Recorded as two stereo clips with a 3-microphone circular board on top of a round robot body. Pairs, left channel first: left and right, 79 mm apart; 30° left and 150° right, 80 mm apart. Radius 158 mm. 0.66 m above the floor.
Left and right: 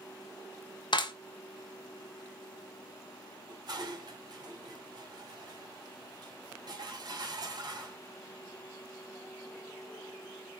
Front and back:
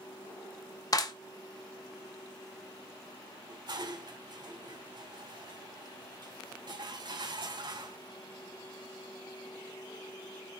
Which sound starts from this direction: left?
A clap, at 0.9 s.